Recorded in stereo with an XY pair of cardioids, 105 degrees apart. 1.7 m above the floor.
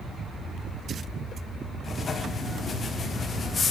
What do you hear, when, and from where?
1.8 s writing: 40° left, 0.7 m